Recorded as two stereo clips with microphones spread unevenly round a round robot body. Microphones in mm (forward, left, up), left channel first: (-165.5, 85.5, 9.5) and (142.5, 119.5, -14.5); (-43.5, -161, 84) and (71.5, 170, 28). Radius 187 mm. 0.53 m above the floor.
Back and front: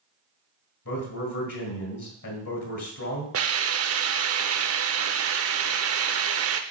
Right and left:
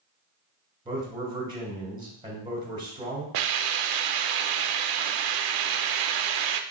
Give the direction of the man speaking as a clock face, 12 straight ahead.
7 o'clock.